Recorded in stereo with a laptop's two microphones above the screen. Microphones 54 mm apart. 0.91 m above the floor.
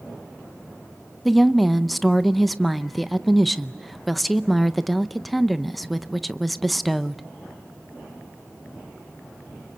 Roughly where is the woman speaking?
Centre.